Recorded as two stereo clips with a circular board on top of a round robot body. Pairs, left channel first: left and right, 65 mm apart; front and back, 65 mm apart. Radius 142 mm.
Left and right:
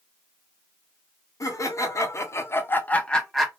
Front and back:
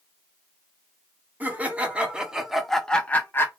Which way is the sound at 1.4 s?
115° left.